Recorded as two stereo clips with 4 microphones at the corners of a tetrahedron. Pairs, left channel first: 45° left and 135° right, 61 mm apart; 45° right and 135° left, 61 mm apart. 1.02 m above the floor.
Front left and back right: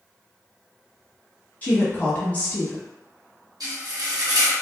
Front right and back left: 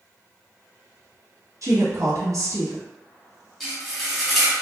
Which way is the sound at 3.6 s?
130° right.